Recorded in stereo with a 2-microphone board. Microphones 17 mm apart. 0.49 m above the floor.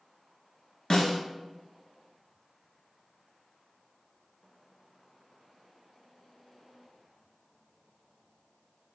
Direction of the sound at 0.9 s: 55° left (ahead or behind).